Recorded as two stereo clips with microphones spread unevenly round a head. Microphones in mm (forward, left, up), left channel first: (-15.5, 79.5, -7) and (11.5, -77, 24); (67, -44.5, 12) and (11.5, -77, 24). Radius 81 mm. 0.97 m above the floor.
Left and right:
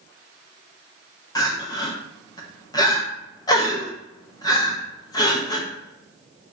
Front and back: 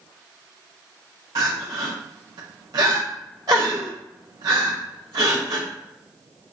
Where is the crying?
160° left, 0.8 m.